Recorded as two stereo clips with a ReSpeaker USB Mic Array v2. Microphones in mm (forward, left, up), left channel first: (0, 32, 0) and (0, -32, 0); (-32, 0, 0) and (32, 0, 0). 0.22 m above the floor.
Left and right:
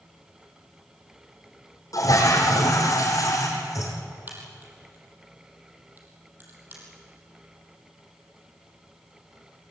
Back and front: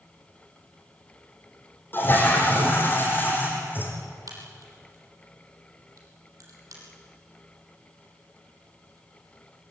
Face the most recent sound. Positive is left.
turn(degrees=-30)